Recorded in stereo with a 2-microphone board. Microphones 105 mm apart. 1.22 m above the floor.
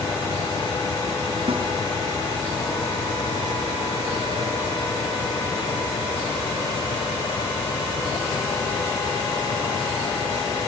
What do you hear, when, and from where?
1.5 s a snare drum: 65° right (ahead or behind), 4 m